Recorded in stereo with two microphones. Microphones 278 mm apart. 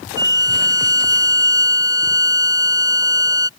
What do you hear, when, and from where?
0.2 s a violin: 15° right (ahead or behind)